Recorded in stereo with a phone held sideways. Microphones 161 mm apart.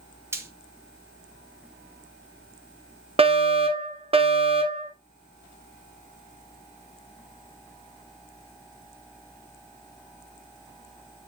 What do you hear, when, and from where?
0.3 s frying: 15° right (ahead or behind), 2 m
3.2 s a fire alarm: 40° right (ahead or behind), 1.6 m